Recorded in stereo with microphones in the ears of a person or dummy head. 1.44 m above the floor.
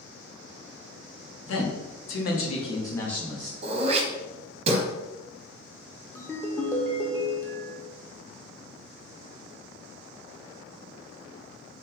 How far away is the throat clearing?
About 0.8 m.